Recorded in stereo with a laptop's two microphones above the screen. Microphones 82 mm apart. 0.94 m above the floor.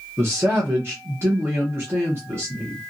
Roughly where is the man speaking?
Right.